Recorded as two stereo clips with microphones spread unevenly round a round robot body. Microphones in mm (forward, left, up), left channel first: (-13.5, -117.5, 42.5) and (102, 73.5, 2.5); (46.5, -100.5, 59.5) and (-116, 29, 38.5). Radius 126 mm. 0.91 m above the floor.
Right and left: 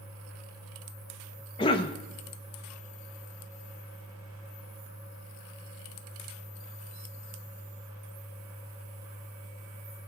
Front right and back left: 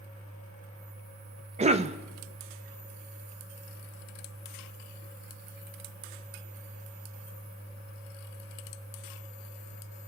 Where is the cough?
165° left, 0.7 m.